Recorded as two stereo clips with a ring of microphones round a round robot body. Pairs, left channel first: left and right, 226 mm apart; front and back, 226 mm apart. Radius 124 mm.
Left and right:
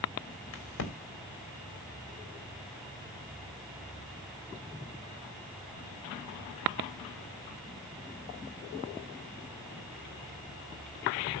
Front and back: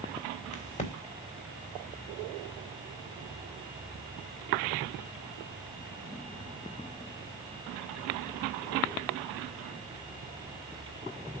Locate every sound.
0.5 s a crack: 60° left, 3 m